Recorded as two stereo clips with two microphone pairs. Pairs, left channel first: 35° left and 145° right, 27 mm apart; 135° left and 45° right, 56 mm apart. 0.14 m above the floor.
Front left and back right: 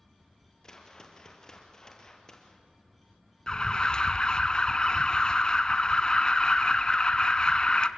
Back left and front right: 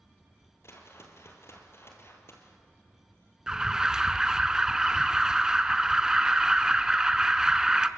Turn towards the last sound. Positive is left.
turn(degrees=20)